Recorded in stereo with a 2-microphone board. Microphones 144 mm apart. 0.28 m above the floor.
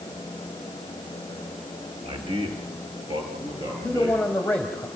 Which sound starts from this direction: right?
A man speaking, at 2.0 s.